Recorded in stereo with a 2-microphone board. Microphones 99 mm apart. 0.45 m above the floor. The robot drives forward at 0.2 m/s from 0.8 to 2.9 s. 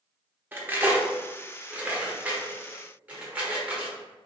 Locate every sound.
0.5 s cutlery clinking: 20° right (ahead or behind), 0.5 m; by 4.0 s 15° right (ahead or behind), 0.7 m